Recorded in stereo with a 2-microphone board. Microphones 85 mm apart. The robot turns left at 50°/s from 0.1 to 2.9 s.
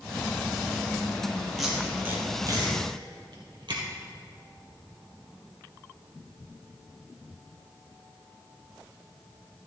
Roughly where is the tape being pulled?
Centre.